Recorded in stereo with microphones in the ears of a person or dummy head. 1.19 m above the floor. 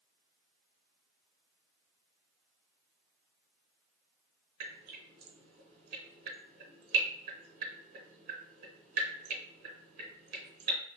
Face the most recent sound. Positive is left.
turn(degrees=-45)  # may be behind; listen again after turning